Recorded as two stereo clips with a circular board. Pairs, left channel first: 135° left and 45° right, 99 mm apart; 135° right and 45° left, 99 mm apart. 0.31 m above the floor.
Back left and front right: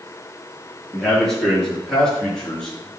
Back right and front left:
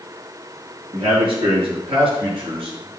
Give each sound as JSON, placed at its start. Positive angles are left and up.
{"t": 0.9, "sound": "a man speaking", "azimuth_deg": 50, "distance_m": 5.0}